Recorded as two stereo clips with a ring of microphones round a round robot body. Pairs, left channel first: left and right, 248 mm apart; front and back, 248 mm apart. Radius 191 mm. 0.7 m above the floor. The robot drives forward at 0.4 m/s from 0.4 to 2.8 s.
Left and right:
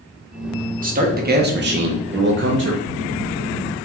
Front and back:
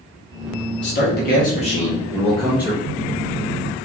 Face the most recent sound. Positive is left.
turn(degrees=125)